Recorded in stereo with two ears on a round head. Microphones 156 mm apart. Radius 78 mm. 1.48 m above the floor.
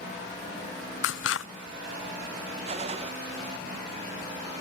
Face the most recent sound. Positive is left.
turn(degrees=-30)  # may be behind; listen again after turning